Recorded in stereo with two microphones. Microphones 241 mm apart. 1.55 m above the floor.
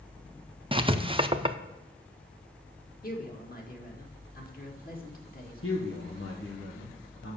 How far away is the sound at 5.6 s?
About 1.2 m.